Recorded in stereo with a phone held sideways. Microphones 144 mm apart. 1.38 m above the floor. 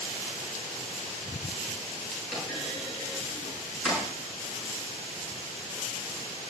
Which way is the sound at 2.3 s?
5° right (ahead or behind).